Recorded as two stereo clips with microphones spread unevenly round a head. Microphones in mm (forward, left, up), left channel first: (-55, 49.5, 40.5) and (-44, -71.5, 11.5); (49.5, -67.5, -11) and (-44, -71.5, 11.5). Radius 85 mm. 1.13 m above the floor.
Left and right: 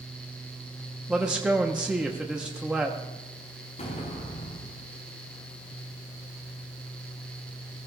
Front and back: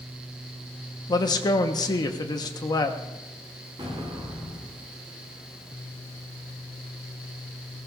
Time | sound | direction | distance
1.1 | a man speaking | 15° right | 1.2 m
3.8 | an explosion | 120° left | 4 m